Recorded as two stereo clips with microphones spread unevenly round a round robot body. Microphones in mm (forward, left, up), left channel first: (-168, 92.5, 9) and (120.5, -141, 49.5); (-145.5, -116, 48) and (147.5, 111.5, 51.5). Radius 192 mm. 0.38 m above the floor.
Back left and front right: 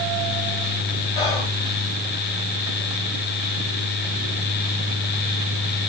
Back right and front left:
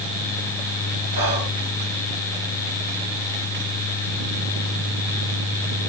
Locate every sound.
1.1 s whispering: 80° left, 1.6 m